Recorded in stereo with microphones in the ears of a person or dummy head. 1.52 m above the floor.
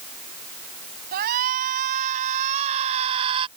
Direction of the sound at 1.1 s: 50° right (ahead or behind).